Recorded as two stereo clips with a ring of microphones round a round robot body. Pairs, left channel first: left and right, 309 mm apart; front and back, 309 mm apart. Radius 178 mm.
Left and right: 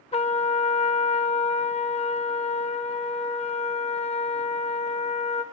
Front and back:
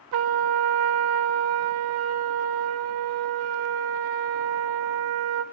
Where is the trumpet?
160° left, 0.7 m.